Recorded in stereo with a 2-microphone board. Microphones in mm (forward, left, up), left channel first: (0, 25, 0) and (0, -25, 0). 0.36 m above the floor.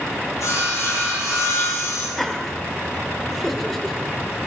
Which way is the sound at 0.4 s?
75° left (ahead or behind).